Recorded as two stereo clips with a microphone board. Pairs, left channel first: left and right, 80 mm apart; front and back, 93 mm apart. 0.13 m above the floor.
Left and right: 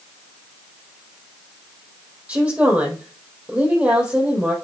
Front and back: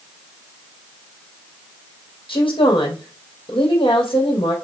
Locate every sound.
2.3 s a woman speaking: 20° right, 4 m